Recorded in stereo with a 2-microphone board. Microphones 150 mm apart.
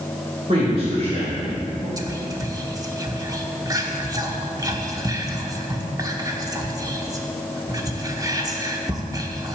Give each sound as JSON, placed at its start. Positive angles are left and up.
{"t": 0.5, "sound": "a man speaking", "side_deg": -50, "distance_m": 2.5}
{"t": 2.0, "sound": "whispering", "side_deg": -25, "distance_m": 0.9}